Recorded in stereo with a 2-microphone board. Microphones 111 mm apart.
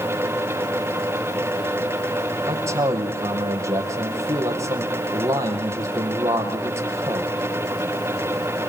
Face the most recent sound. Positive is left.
turn(degrees=-25)  # may be behind; listen again after turning